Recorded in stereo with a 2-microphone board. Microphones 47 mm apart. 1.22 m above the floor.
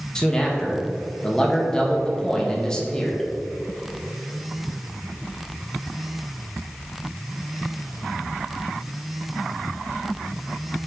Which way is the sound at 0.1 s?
15° left (ahead or behind).